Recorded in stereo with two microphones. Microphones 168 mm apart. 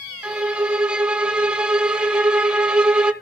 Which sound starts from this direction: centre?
A violin, at 0.2 s.